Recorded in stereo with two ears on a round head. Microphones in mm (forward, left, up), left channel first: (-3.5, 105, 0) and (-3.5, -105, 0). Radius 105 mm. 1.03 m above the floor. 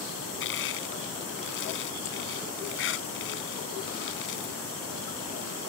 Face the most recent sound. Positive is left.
turn(degrees=55)  # may be behind; listen again after turning